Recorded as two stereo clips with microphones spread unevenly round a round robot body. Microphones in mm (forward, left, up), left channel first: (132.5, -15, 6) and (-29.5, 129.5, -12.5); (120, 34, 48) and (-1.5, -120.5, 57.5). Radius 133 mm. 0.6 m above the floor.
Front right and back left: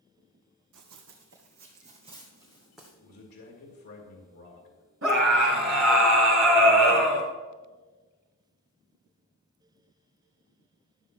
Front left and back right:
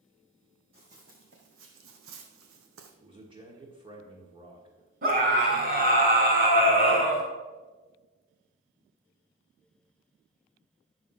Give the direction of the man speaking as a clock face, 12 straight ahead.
2 o'clock.